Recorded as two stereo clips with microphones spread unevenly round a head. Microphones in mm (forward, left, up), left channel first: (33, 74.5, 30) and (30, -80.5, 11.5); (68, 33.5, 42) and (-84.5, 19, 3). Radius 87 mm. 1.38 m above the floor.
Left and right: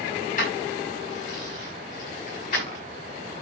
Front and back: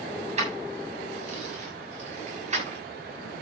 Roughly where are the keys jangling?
Behind left.